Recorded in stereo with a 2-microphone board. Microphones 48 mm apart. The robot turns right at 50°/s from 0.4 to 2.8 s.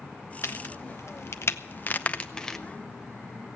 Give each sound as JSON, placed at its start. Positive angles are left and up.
{"t": 0.4, "sound": "a crack", "side_deg": 60, "distance_m": 0.7}